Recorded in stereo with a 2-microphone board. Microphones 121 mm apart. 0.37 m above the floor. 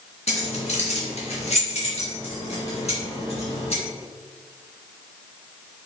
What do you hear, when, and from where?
0.3 s keys jangling: 65° left (ahead or behind), 2.5 m; by 3.8 s 60° left (ahead or behind), 4.5 m